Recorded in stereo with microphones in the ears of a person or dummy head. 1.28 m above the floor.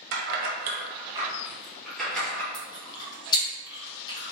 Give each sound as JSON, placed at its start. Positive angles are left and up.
{"t": 0.1, "sound": "keys jangling", "side_deg": -70, "distance_m": 0.7}
{"t": 2.5, "sound": "chewing", "side_deg": 25, "distance_m": 1.0}